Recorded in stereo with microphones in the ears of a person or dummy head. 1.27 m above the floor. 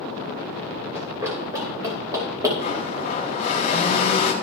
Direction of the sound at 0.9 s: 15° right (ahead or behind).